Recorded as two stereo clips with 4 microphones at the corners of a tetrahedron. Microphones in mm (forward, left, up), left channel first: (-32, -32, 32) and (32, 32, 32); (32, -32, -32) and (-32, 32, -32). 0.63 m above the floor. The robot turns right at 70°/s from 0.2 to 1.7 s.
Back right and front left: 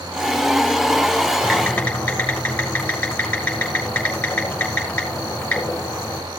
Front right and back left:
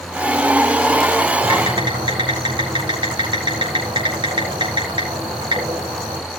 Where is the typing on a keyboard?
130° left, 4 m; by 6.2 s 150° left, 4 m.